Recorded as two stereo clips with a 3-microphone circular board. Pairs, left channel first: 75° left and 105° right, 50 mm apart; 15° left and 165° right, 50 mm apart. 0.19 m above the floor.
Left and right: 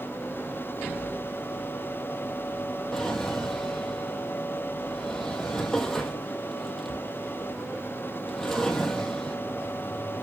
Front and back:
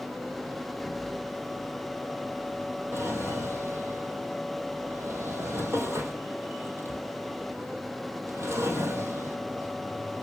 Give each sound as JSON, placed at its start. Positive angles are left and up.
{"t": 2.9, "sound": "a drawer", "azimuth_deg": 155, "distance_m": 1.9}